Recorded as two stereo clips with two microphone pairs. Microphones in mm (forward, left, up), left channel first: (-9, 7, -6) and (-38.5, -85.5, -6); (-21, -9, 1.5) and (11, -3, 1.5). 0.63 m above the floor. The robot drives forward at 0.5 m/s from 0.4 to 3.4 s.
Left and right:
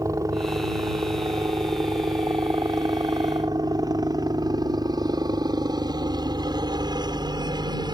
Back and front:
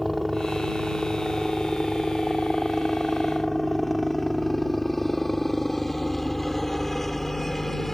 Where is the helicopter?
75° right; by 7.9 s 90° right.